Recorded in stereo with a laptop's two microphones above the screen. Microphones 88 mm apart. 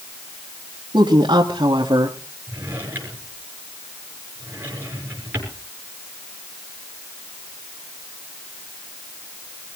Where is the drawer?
25° right (ahead or behind), 6.5 m.